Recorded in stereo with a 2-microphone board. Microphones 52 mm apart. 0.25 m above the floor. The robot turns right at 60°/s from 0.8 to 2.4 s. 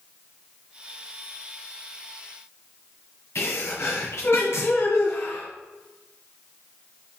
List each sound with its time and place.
3.4 s a sneeze: 55° left (ahead or behind), 2 m